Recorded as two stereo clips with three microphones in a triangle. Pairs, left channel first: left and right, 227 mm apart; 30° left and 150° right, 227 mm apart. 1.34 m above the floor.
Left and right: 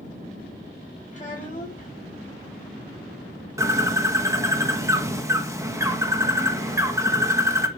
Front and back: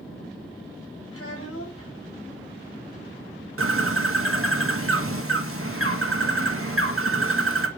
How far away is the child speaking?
About 6 m.